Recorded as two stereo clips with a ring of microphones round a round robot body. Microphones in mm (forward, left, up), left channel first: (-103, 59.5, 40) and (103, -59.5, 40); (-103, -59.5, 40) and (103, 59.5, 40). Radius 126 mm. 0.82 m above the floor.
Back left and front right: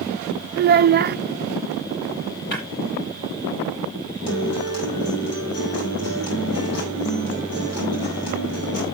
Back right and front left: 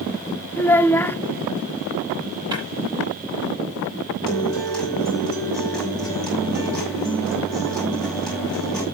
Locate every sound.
0.6 s a child speaking: 70° right, 0.6 m
2.5 s breaking glass: 105° left, 10 m
4.3 s a guitar: 125° left, 6.5 m